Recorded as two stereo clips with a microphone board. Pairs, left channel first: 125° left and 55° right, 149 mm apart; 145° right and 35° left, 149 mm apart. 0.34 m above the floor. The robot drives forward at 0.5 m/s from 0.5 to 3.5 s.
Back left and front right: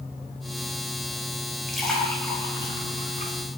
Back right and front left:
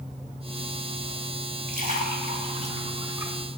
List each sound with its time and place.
1.7 s a splash: 35° left, 0.9 m; by 3.4 s 105° left, 0.6 m